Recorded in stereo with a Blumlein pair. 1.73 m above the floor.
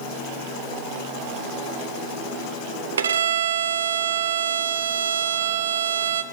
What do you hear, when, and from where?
3.0 s a violin: 65° right, 0.5 m